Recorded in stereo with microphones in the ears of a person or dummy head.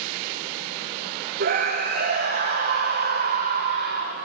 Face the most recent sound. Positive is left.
turn(degrees=-50)  # may be behind; listen again after turning